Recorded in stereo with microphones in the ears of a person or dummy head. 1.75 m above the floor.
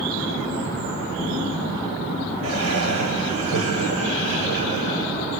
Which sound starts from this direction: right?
Laughter, at 2.4 s.